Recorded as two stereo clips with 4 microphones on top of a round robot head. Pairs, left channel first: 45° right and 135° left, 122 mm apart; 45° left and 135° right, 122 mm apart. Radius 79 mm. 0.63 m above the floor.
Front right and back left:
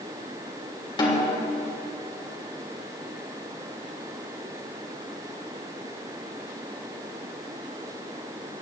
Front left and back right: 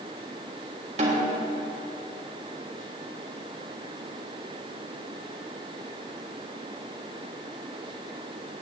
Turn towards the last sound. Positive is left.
turn(degrees=-100)